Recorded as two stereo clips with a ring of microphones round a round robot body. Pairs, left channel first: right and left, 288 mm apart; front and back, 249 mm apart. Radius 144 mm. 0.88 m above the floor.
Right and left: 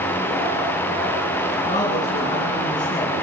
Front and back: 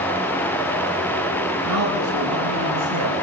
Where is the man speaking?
165° right, 9 m.